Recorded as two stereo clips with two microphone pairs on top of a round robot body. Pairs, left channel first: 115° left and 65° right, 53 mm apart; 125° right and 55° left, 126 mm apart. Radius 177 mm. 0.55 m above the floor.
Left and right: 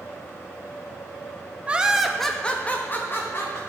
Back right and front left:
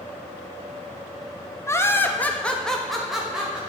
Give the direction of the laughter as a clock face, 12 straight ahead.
3 o'clock.